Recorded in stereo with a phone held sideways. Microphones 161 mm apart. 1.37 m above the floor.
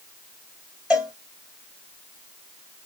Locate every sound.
0.9 s a cowbell: 5° right (ahead or behind), 1.7 m